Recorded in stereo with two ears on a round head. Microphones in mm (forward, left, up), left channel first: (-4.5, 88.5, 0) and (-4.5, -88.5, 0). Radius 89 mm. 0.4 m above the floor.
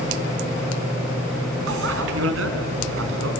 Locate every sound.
1.7 s a bicycle bell: 75° right (ahead or behind), 3 m